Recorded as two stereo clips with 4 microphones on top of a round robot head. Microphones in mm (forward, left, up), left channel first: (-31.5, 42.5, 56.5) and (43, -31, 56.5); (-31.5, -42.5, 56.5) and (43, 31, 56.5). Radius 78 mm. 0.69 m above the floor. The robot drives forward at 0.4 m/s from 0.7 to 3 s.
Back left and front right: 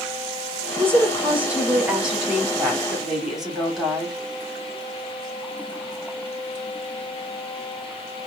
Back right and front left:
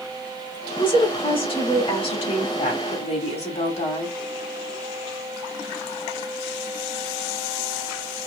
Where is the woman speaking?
110° right, 1.9 m; by 4.2 s 135° right, 2.5 m.